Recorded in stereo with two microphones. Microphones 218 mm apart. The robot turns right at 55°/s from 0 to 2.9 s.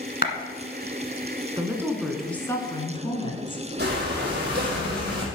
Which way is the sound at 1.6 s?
30° right.